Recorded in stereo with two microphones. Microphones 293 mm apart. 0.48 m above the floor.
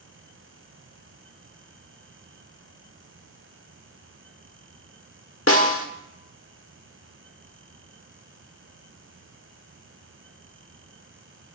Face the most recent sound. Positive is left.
turn(degrees=45)  # may be behind; listen again after turning